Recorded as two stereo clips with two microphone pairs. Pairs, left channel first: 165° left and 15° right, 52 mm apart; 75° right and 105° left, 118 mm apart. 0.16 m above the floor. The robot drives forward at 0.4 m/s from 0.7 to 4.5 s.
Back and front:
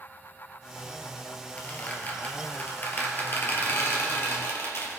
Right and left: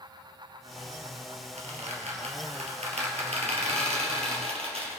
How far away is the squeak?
About 2.5 m.